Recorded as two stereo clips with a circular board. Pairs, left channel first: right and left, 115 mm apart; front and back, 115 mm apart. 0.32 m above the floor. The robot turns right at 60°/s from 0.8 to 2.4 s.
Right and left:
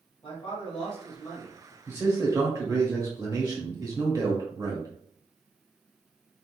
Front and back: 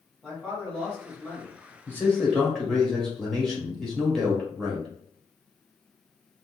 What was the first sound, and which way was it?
A man speaking, 85° right.